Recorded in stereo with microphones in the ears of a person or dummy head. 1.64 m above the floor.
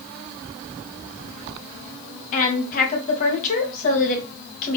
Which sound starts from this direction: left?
A woman speaking, at 2.3 s.